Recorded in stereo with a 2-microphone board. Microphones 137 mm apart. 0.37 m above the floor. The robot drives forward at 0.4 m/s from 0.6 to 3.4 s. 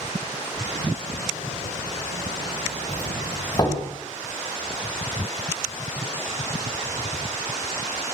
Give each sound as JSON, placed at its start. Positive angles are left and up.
{"t": 2.9, "sound": "a doorbell", "side_deg": 35, "distance_m": 3.5}